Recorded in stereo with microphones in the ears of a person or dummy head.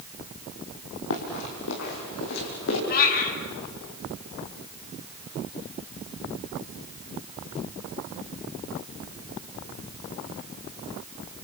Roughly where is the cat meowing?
Left.